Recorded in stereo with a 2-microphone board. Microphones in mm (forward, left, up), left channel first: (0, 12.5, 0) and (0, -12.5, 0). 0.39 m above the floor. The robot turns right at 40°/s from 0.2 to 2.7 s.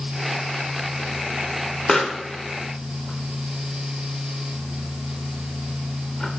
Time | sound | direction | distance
1.9 | a pop | 20° left (ahead or behind) | 0.7 m